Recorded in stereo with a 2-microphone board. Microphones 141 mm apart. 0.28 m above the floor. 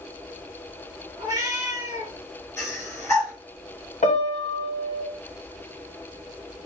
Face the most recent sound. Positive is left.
turn(degrees=55)  # may be behind; listen again after turning